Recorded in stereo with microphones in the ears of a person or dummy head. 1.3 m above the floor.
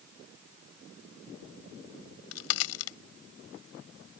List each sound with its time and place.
2.0 s a crack: 80° left